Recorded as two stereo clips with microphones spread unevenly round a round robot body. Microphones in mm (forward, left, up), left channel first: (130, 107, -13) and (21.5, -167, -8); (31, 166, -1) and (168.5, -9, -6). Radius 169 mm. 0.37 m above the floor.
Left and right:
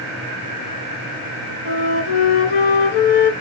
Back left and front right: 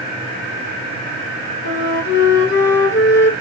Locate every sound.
1.6 s a flute: 85° left, 0.9 m